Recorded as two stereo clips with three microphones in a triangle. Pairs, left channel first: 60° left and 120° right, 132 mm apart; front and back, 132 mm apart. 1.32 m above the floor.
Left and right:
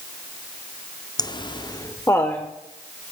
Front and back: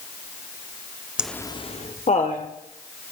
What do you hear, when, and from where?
1.2 s laughter: 100° left, 0.5 m; by 2.5 s 15° right, 1.4 m